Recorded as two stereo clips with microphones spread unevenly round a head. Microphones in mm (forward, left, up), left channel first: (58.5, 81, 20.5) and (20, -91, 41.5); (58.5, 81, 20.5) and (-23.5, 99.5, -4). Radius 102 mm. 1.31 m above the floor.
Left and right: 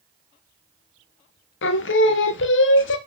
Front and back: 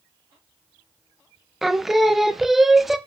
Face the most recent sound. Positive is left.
turn(degrees=85)